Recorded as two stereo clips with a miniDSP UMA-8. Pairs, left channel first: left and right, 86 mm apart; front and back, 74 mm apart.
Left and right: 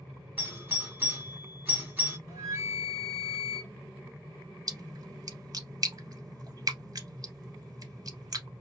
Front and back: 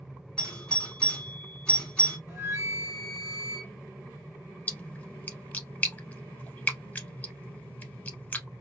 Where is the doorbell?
55° right, 1.4 m.